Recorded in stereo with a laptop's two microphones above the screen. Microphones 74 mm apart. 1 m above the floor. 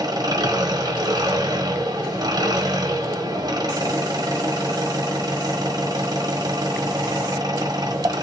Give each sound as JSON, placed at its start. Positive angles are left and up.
{"t": 0.0, "sound": "an engine running", "side_deg": -60, "distance_m": 1.5}